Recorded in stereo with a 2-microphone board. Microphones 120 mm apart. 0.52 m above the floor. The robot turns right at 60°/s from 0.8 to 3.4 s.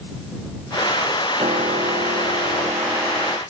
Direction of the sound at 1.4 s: 125° right.